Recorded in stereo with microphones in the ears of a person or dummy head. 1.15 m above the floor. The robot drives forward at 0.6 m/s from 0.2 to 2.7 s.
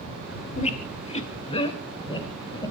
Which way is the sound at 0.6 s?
40° left (ahead or behind).